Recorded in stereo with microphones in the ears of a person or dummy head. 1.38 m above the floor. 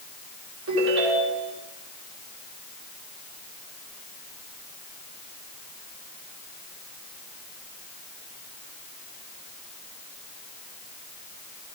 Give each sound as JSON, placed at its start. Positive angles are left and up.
{"t": 0.7, "sound": "a ringtone", "side_deg": -75, "distance_m": 3.0}